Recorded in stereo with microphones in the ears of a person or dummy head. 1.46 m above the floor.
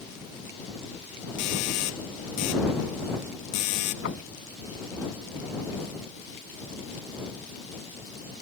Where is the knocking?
75° left (ahead or behind).